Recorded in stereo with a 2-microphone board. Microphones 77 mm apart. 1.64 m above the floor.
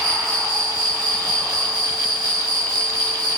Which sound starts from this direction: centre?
An insect, at 0.0 s.